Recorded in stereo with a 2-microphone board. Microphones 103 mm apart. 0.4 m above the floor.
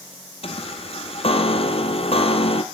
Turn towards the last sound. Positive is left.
turn(degrees=70)  # may be behind; listen again after turning